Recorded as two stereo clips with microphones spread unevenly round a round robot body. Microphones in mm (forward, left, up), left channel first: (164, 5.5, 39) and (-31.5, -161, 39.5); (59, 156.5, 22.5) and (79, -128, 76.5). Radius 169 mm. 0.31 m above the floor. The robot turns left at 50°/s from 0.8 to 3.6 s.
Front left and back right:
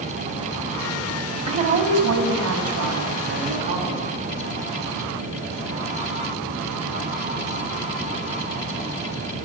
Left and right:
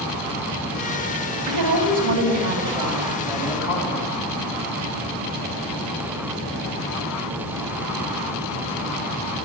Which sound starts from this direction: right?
A woman speaking, at 1.5 s.